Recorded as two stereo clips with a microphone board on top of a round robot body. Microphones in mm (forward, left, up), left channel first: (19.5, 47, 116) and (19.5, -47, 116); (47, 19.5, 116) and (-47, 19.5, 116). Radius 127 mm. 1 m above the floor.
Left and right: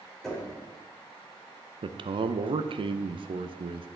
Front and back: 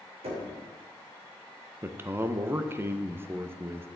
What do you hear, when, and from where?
0.2 s knocking: 175° left, 3 m
1.8 s a man speaking: 115° right, 0.6 m